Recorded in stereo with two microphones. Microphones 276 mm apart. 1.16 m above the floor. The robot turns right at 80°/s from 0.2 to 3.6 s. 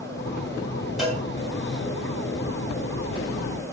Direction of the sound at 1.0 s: Centre (ahead or behind).